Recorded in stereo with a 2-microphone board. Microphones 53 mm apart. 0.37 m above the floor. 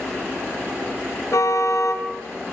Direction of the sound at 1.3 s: 70° left (ahead or behind).